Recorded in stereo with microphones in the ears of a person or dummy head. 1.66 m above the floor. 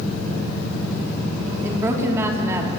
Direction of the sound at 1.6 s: 15° right (ahead or behind).